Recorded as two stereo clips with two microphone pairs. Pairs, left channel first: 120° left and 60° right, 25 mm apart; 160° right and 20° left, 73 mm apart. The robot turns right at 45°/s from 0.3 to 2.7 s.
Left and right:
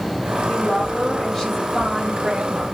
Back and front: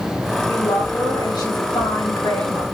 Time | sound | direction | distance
0.5 | a woman speaking | 160° left | 5.5 m